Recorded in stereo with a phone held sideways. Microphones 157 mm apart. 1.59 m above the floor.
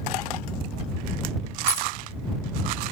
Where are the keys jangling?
15° left (ahead or behind).